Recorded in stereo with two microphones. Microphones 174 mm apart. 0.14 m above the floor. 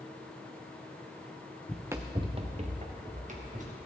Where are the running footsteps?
5° left (ahead or behind), 0.5 m; by 3.8 s 45° right (ahead or behind), 2.5 m.